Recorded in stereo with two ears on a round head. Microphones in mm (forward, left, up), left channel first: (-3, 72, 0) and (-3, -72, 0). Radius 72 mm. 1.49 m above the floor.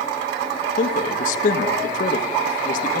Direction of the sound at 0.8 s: 55° left (ahead or behind).